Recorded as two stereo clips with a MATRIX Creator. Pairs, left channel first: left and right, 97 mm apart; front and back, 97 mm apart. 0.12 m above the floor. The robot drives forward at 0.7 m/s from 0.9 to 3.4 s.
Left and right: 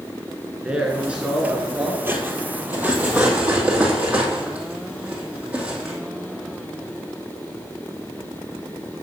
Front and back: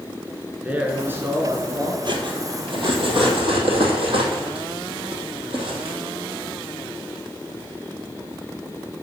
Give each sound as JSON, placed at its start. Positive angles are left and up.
{"t": 0.6, "sound": "a man speaking", "azimuth_deg": -145, "distance_m": 1.5}
{"t": 2.0, "sound": "cutlery clinking", "azimuth_deg": -155, "distance_m": 1.5}